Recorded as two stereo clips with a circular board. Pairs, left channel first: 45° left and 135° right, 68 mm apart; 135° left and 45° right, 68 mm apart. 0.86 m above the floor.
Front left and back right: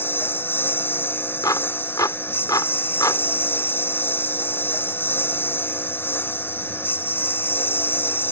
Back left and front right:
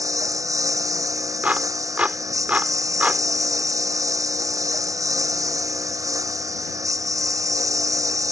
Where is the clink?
No clink in this recording.